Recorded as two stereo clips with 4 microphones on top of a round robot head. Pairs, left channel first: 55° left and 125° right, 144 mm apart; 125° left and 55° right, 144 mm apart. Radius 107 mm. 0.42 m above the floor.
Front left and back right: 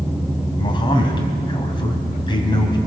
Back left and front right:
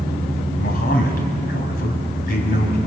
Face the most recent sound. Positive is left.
turn(degrees=110)